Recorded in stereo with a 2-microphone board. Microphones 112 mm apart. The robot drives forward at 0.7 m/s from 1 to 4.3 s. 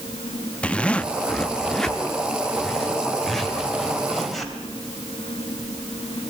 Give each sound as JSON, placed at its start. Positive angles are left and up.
{"t": 0.6, "sound": "a zipper", "side_deg": 10, "distance_m": 0.6}